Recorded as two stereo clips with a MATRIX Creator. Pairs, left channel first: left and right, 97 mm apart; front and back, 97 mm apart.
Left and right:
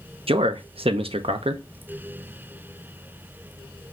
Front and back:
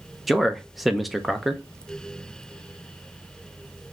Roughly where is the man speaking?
Right.